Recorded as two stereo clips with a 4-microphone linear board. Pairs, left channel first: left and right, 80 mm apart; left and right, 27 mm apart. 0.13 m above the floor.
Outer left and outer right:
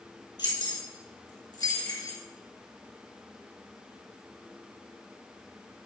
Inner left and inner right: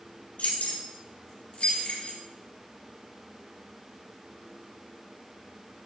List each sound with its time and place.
0.4 s keys jangling: 65° left (ahead or behind), 2.5 m; by 2.2 s 50° left (ahead or behind), 1.8 m